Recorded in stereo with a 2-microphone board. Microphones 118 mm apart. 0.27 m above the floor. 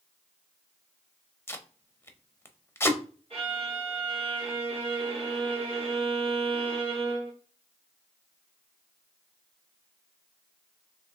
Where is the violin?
60° right (ahead or behind), 1.7 m.